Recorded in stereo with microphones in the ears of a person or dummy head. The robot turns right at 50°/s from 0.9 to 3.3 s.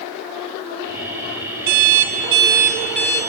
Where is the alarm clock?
55° right, 3 m; by 3.2 s 20° left, 3 m.